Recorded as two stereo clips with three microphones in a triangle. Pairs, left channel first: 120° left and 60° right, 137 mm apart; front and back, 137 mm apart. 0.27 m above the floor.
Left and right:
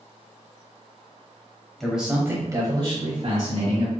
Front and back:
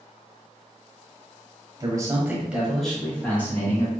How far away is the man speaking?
About 1.1 m.